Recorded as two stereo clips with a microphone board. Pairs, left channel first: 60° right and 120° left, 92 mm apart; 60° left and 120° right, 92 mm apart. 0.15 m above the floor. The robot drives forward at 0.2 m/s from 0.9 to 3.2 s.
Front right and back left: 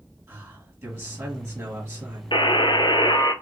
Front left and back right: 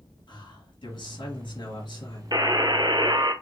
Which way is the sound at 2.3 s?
80° right.